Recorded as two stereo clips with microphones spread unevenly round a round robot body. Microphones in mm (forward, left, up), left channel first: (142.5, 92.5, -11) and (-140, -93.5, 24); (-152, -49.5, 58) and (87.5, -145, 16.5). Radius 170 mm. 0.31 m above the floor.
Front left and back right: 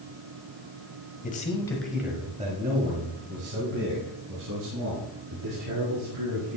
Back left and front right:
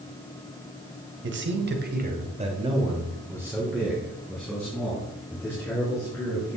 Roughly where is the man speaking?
Ahead.